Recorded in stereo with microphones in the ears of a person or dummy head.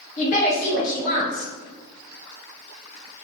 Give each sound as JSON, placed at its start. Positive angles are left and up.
{"t": 0.2, "sound": "a woman speaking", "side_deg": 45, "distance_m": 1.3}